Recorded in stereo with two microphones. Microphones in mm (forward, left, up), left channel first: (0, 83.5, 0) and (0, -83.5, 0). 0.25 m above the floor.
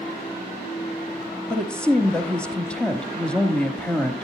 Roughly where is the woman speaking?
Centre.